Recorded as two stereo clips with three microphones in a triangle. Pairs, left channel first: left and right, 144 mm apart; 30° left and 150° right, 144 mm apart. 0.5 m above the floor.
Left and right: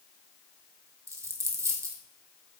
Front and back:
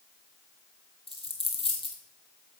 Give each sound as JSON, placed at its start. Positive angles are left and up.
{"t": 1.1, "sound": "a dropped coin", "azimuth_deg": -20, "distance_m": 1.3}